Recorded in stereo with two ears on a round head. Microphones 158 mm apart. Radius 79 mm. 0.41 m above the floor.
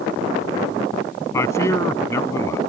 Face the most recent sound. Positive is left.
turn(degrees=15)  # may be behind; listen again after turning